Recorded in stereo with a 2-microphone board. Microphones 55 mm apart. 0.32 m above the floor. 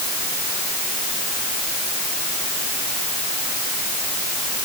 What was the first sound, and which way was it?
Only background noise.